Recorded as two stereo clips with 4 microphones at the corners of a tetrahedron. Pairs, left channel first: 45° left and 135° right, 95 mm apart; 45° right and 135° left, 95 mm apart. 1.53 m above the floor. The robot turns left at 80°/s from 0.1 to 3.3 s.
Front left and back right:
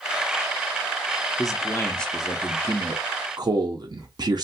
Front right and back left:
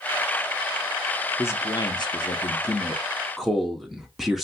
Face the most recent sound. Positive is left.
turn(degrees=-140)